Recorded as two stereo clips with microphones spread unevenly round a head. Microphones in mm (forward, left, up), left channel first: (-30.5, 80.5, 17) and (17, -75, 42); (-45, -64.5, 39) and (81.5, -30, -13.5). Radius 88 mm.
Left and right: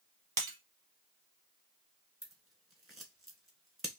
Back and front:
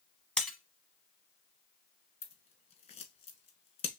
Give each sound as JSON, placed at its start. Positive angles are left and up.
{"t": 0.4, "sound": "breaking glass", "azimuth_deg": -110, "distance_m": 1.0}
{"t": 2.2, "sound": "scissors", "azimuth_deg": -155, "distance_m": 1.2}